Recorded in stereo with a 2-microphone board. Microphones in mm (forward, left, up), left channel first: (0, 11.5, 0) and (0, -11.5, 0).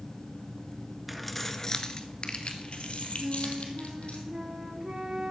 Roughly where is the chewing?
No chewing in this recording.